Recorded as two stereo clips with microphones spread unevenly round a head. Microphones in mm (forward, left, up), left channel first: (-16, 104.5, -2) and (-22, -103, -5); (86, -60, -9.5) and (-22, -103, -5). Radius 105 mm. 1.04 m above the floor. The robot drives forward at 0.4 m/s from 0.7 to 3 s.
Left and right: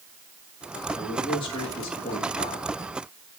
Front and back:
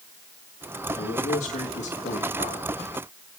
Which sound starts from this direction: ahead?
A man speaking, at 0.9 s.